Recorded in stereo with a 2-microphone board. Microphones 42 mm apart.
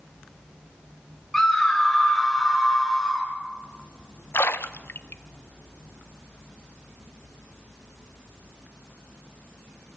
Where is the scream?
10° left (ahead or behind), 4 m; by 3.3 s centre (ahead or behind), 5 m.